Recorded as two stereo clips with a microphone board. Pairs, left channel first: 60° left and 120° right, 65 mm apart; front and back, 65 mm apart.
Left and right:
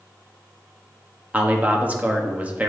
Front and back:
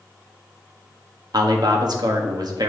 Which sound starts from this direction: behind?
A man speaking, at 1.3 s.